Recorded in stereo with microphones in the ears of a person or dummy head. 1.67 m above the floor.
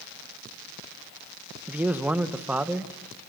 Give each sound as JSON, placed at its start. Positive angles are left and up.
{"t": 1.7, "sound": "a man speaking", "side_deg": -15, "distance_m": 1.3}